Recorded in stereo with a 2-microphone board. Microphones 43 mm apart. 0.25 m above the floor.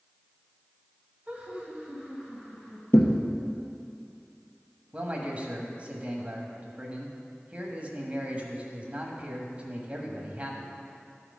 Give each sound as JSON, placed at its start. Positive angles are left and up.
{"t": 1.3, "sound": "laughter", "side_deg": -30, "distance_m": 1.8}
{"t": 2.9, "sound": "a thud", "side_deg": 85, "distance_m": 1.1}
{"t": 4.9, "sound": "a man speaking", "side_deg": -35, "distance_m": 1.2}